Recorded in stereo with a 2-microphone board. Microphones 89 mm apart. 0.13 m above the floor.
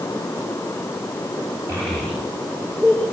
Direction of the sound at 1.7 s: 30° right (ahead or behind).